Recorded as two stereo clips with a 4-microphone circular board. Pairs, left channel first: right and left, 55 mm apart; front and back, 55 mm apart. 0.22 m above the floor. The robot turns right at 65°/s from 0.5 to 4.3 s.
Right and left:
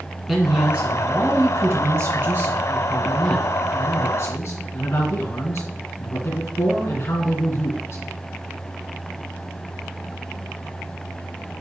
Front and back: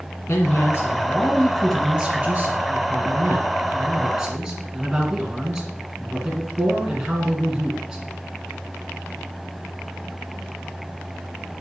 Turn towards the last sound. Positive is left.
turn(degrees=-100)